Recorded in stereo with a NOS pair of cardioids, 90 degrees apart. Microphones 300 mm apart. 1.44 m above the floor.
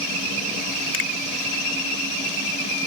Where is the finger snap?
45° left, 2 m.